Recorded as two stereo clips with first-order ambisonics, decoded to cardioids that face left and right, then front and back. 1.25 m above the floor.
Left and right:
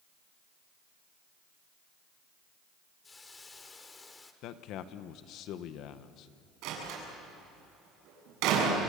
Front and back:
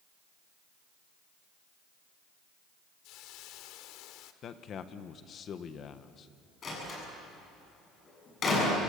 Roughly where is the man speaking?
Ahead left.